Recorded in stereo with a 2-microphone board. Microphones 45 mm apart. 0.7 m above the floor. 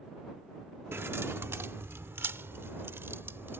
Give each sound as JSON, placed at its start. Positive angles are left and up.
{"t": 0.9, "sound": "keys jangling", "side_deg": -70}